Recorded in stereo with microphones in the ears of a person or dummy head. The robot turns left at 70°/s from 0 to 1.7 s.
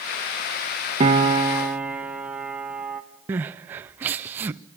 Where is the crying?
15° right (ahead or behind), 0.5 m.